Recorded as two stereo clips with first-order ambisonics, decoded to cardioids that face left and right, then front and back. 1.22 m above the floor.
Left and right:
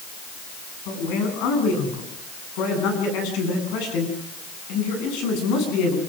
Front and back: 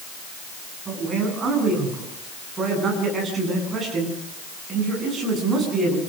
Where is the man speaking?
110° left, 10 m.